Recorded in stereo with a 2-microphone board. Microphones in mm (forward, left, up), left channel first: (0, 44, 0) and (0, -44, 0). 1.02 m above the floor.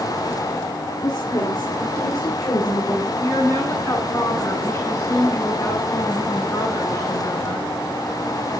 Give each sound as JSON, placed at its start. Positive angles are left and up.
{"t": 1.0, "sound": "a woman speaking", "side_deg": 60, "distance_m": 2.0}
{"t": 3.2, "sound": "a woman speaking", "side_deg": 30, "distance_m": 10.0}